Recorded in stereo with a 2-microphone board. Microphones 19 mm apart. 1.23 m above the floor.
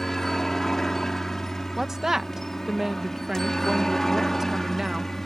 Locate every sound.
0.0 s a helicopter: 20° left (ahead or behind)
1.8 s a woman speaking: 25° right (ahead or behind)